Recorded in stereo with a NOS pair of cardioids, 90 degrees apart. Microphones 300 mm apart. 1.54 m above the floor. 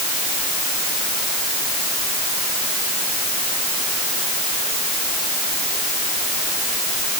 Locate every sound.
Only background noise.